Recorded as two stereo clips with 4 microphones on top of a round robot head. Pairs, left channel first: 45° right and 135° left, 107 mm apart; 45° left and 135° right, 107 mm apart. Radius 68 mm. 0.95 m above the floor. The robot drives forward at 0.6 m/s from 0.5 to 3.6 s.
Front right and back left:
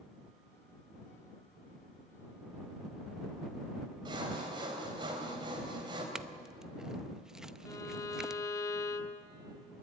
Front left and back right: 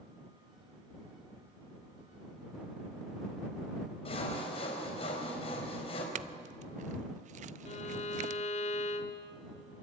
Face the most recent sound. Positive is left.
turn(degrees=20)